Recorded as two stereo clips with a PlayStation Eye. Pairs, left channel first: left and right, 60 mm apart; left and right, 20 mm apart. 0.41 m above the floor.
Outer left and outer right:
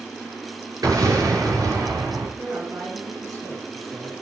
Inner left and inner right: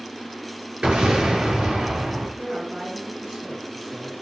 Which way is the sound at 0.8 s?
80° right.